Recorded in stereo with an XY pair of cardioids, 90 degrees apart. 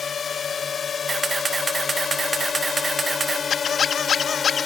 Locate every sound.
0.0 s a drone: 50° left; by 4.7 s 45° left
1.1 s a camera shutter: 35° right
3.5 s a squeak: 60° left